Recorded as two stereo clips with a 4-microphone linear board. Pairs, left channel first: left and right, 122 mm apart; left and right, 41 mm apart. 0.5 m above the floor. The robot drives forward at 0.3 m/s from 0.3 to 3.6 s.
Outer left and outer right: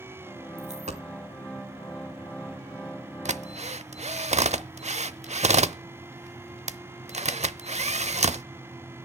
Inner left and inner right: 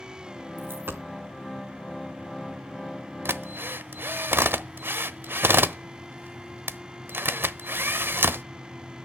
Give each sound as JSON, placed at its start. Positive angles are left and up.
{"t": 0.6, "sound": "a dropped coin", "side_deg": -75, "distance_m": 2.0}
{"t": 3.2, "sound": "a drill", "side_deg": -75, "distance_m": 0.7}